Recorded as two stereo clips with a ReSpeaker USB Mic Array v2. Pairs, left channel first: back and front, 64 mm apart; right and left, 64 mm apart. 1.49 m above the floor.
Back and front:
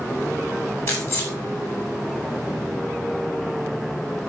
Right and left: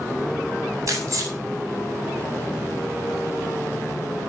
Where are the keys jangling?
130° left, 8.5 m.